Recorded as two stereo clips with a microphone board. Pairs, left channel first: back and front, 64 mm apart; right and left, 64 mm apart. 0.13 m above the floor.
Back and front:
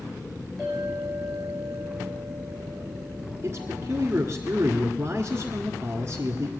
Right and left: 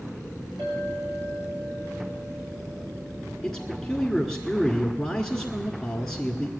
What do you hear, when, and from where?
0.6 s a clink: 95° left, 4.5 m
3.4 s a man speaking: 5° right, 1.5 m